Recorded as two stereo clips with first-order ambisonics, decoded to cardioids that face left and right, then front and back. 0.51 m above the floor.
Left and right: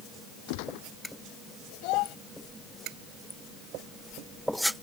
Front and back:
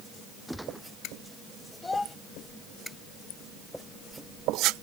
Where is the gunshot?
90° left.